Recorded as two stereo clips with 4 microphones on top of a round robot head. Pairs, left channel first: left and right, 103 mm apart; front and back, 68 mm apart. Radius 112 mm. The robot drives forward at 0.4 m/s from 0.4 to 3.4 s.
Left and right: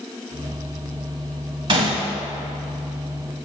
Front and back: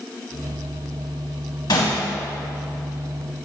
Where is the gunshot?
50° right, 0.6 m; by 2.1 s 65° right, 0.5 m.